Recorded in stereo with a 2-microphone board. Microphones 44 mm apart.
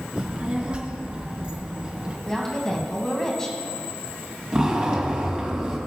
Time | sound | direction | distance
0.2 | a child speaking | 30° right (ahead or behind) | 1.7 m
2.3 | a woman speaking | 10° left (ahead or behind) | 1.3 m
4.5 | a zipper | 25° right (ahead or behind) | 1.6 m